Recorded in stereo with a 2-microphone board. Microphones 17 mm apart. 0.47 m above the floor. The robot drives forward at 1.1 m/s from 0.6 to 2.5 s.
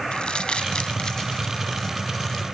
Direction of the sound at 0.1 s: 70° left (ahead or behind).